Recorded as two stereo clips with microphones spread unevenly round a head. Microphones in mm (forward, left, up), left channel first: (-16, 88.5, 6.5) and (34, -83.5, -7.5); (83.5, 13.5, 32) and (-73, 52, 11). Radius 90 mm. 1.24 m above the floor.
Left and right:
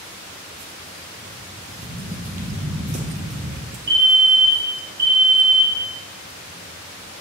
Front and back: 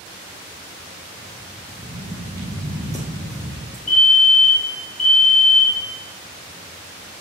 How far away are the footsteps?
About 3 m.